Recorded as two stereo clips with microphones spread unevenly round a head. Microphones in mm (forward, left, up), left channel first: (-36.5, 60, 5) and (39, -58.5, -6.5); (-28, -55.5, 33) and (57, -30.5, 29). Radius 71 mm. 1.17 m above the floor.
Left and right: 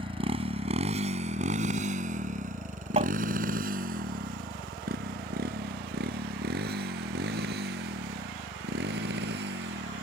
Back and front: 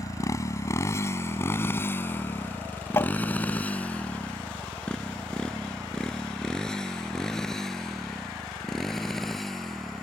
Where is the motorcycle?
115° right; by 10.0 s 75° right.